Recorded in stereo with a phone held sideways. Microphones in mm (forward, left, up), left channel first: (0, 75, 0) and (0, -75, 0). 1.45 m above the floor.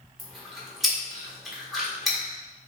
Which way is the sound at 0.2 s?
Centre (ahead or behind).